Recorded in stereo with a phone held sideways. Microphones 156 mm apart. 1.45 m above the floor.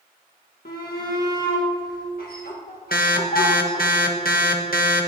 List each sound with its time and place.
0.7 s a shout: 70° left (ahead or behind), 1.5 m
2.9 s an alarm: 70° left (ahead or behind), 1.4 m